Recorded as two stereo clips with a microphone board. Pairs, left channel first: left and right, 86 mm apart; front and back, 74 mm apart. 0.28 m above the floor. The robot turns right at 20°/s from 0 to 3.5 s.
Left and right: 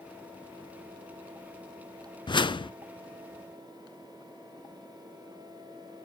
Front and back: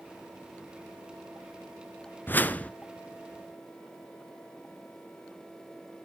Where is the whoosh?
60° left, 0.5 m; by 2.7 s 70° left, 0.5 m.